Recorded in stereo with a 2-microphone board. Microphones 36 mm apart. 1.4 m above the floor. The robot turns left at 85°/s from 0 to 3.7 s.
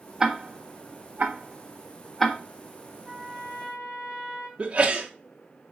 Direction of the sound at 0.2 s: 10° right (ahead or behind).